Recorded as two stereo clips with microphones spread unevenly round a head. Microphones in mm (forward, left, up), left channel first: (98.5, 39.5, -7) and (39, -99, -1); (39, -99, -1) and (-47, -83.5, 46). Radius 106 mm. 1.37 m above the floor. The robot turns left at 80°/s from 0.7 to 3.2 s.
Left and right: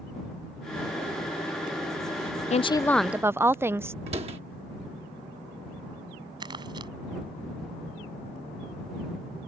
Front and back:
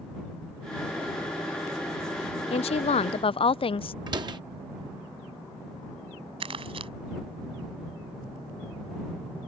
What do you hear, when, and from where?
2.5 s a woman speaking: 20° left; by 4.0 s 35° right
4.1 s a door slam: 175° right
6.4 s crumpling: 175° left